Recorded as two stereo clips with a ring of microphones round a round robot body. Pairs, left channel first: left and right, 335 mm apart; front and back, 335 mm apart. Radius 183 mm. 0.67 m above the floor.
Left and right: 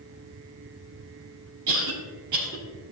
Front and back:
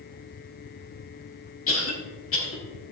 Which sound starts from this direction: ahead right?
A cough, at 1.7 s.